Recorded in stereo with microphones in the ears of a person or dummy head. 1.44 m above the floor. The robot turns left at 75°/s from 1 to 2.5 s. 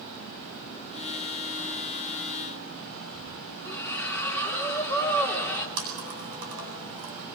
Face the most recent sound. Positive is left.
turn(degrees=-70)  # may be behind; listen again after turning